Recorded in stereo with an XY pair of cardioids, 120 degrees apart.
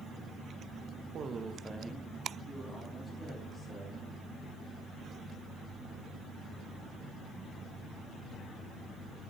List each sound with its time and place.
1.1 s a man speaking: 50° right, 0.7 m; by 4.0 s 10° left, 3 m